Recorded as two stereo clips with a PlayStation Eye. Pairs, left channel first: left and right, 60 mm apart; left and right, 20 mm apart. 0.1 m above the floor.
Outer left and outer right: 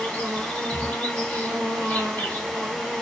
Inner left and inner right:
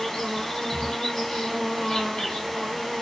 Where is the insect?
30° left (ahead or behind), 1.6 m.